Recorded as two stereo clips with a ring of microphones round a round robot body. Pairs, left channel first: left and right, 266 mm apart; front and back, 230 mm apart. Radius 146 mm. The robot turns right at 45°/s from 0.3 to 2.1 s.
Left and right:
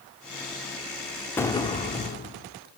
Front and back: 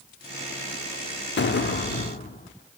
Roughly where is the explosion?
Ahead.